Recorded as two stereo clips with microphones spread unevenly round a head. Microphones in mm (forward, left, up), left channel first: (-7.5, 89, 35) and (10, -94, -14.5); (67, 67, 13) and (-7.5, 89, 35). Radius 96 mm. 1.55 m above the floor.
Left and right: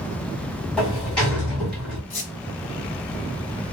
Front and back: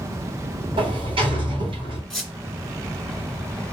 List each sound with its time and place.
0.8 s a sliding door: 175° left, 1.9 m
2.1 s a squeak: 85° left, 2 m